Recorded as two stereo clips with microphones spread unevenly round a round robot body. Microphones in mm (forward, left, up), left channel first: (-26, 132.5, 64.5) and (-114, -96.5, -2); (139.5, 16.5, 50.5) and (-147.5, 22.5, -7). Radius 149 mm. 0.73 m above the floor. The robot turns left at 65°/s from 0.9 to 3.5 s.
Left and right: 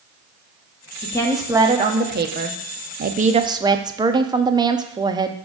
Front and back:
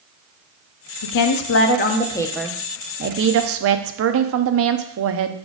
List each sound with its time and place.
1.0 s a woman speaking: 10° right, 0.8 m; by 5.3 s 170° right, 0.8 m